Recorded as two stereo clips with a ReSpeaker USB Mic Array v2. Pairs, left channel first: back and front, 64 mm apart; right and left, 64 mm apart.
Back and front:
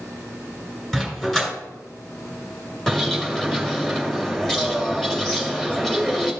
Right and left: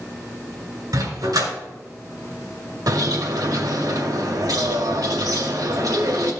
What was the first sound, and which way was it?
A dog barking, 95° left.